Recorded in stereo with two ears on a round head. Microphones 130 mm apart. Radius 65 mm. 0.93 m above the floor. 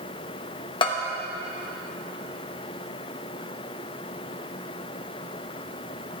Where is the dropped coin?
I don't hear a dropped coin.